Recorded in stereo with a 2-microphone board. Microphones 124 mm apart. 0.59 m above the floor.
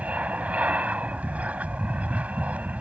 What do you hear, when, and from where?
0.0 s an aircraft: 10° right (ahead or behind)